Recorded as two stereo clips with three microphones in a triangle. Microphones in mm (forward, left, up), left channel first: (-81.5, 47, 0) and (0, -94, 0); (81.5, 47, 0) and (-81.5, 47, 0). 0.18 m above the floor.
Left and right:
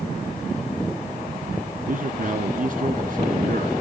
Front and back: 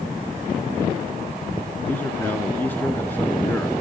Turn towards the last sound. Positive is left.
turn(degrees=-75)